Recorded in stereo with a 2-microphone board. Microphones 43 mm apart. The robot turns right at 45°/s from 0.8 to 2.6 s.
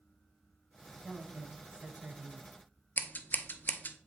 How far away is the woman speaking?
About 1.0 m.